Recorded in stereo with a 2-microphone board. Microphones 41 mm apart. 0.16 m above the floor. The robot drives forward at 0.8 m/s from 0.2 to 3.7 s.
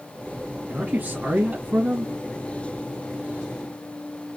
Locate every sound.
0.7 s a man speaking: 25° right (ahead or behind), 1.9 m; by 2.1 s 30° right (ahead or behind), 1.6 m